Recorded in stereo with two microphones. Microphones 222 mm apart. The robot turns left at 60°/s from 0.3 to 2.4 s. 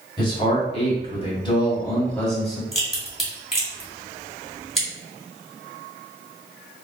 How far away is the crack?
About 1.6 m.